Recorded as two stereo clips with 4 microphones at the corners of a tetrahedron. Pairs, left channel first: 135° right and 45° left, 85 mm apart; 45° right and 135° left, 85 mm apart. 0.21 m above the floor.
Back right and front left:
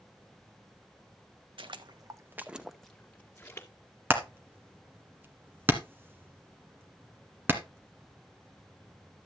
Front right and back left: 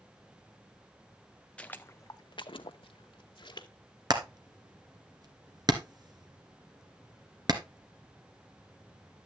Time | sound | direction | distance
1.6 | footsteps | 30° left | 0.8 m
4.1 | hammering | 105° left | 1.8 m